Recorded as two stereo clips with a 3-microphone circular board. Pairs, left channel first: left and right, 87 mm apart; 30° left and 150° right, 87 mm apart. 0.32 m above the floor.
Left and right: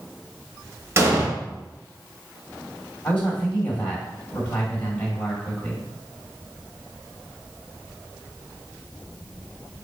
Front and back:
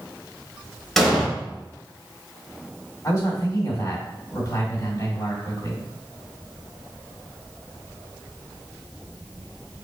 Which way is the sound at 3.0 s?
25° left.